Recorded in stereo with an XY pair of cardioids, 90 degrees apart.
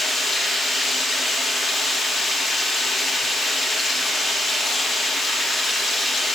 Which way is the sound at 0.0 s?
55° left.